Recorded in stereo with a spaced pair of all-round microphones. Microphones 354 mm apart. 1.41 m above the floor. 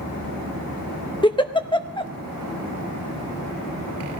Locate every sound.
1.2 s a giggle: 15° left (ahead or behind), 0.7 m